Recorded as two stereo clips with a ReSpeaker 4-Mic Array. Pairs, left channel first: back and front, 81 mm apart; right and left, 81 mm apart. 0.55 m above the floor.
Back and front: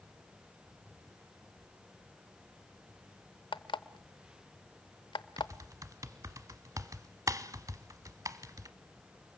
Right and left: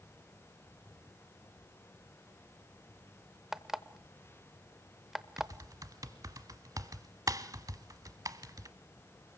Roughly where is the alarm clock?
Behind.